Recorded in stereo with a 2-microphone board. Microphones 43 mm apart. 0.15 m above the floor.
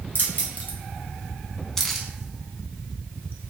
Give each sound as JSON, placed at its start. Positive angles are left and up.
{"t": 0.1, "sound": "keys jangling", "side_deg": 45, "distance_m": 1.2}